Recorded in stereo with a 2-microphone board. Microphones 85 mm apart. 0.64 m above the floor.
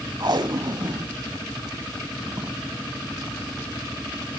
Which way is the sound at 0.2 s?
55° right (ahead or behind).